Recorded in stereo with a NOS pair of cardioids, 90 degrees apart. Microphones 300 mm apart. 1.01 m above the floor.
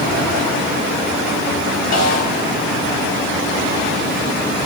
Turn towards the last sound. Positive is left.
turn(degrees=65)